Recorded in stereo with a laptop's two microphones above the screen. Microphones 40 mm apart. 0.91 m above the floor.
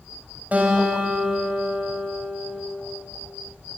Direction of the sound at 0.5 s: 35° right (ahead or behind).